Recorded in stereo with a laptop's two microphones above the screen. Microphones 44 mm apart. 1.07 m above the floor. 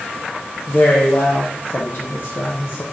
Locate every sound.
0.7 s a man speaking: 60° left (ahead or behind), 0.6 m